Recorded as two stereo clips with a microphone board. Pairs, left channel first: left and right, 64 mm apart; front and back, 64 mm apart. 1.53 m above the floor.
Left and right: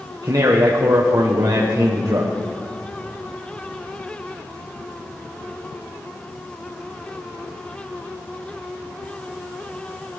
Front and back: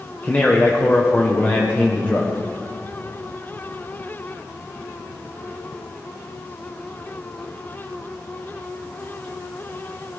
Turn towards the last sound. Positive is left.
turn(degrees=-65)